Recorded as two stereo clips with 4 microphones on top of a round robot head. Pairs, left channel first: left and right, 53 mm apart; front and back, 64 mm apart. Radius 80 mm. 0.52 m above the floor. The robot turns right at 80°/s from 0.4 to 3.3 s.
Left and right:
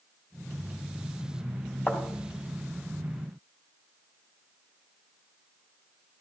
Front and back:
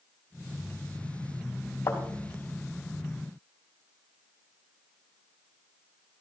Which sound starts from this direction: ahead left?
A thud, at 1.9 s.